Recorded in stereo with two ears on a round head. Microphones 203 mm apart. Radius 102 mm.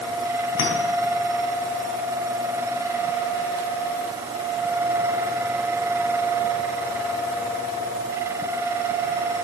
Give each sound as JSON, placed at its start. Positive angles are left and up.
{"t": 0.6, "sound": "a clink", "side_deg": 80, "distance_m": 4.0}